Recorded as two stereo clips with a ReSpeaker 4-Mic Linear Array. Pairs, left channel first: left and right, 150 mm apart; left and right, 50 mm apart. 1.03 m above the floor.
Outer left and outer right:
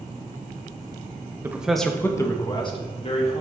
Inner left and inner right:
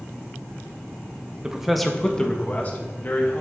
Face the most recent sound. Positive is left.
turn(degrees=45)  # may be behind; listen again after turning